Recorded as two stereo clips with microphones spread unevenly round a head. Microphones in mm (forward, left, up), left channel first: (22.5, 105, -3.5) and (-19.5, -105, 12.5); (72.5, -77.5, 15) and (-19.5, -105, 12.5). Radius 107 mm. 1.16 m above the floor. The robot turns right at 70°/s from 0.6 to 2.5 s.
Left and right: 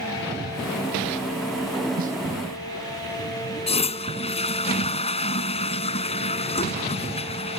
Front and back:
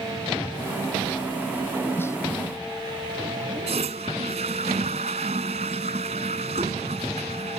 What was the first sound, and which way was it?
A snare drum, 50° right.